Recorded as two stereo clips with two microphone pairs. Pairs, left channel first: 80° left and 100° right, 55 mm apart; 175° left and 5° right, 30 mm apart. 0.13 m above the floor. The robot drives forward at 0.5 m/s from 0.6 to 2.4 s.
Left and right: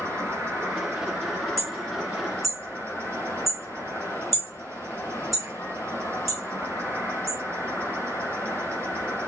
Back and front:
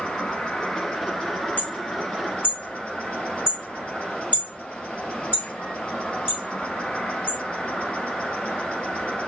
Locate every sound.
0.0 s an insect: 130° right, 2.5 m; by 9.3 s 145° right, 3 m
1.6 s hammering: 170° left, 1.8 m